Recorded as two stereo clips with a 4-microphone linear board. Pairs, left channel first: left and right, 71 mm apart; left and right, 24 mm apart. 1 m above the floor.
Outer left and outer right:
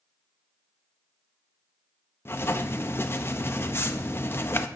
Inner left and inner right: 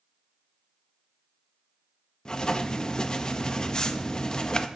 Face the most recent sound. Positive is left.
turn(degrees=35)  # may be behind; listen again after turning